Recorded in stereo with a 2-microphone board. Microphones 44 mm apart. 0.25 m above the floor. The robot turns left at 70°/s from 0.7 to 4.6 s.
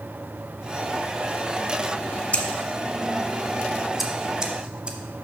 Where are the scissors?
35° left (ahead or behind), 0.8 m; by 5.0 s 25° right (ahead or behind), 0.8 m.